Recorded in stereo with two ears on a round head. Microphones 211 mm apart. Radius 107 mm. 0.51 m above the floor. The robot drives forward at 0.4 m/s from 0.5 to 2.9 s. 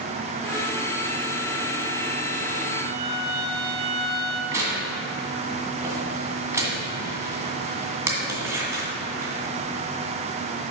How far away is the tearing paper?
About 2.0 m.